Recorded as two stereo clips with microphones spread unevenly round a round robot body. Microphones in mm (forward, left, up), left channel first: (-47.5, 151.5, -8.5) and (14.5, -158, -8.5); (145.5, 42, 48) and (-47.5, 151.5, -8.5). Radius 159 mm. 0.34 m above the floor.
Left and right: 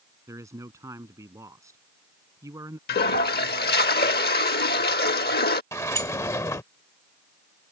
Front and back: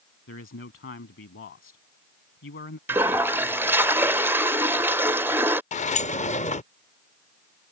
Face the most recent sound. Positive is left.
turn(degrees=30)